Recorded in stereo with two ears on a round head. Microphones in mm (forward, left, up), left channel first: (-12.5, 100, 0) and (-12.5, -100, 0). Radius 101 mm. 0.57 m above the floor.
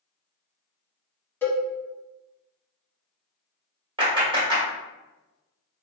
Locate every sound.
1.4 s a cowbell: 10° left (ahead or behind), 0.7 m
4.0 s a clap: 20° right (ahead or behind), 1.4 m